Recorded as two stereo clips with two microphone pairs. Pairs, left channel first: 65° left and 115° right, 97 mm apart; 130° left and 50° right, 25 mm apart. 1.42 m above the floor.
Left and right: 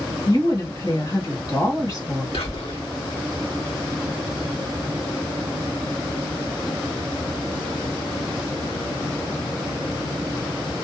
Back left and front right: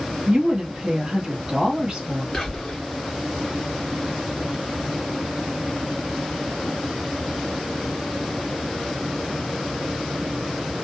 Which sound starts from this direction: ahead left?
Whispering, at 2.3 s.